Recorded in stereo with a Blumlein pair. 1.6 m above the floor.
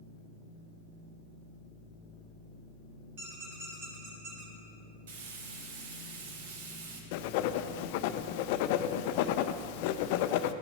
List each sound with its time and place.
3.2 s a squeak: 45° right, 4 m
5.1 s frying: 55° right, 1.7 m
7.1 s writing: 45° left, 0.5 m